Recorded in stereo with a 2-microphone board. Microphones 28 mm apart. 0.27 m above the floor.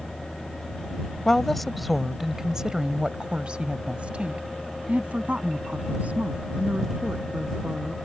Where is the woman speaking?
15° left (ahead or behind); by 8.0 s 65° right (ahead or behind).